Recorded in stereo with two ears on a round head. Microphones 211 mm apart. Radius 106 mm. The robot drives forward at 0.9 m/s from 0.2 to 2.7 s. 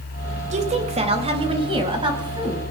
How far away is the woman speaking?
About 3 m.